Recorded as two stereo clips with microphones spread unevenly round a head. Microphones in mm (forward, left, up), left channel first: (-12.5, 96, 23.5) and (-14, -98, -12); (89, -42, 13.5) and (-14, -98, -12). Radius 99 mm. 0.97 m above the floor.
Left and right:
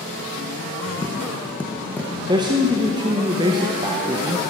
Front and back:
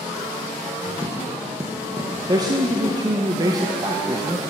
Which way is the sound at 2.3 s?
135° right.